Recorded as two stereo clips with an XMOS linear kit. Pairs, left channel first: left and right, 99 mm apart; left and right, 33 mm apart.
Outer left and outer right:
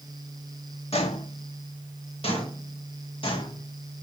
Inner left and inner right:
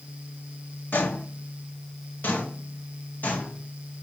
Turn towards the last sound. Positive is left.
turn(degrees=55)  # may be behind; listen again after turning